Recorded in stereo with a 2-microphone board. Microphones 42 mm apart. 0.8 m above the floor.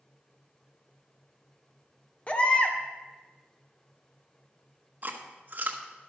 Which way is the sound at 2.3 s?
30° left (ahead or behind).